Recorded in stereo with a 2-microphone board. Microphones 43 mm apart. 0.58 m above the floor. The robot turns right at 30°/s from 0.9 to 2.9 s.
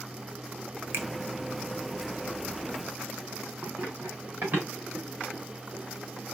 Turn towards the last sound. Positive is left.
turn(degrees=-35)  # may be behind; listen again after turning